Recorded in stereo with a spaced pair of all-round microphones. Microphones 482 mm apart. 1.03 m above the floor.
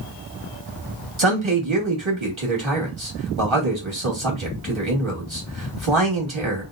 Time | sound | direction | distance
1.2 | a man speaking | 75° right (ahead or behind) | 2 m